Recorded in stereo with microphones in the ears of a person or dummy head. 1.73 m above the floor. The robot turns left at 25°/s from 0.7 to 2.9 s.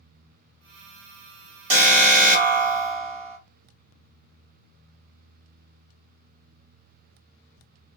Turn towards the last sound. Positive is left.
turn(degrees=-105)